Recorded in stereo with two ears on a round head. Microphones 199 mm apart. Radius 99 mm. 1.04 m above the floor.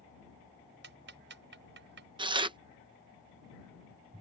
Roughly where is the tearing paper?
Right.